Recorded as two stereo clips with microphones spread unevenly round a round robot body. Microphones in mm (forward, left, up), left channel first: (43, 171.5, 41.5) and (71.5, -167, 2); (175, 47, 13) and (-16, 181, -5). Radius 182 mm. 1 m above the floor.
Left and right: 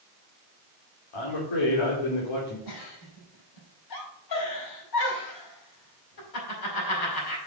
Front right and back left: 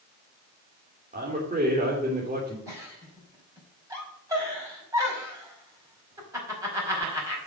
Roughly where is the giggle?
Left.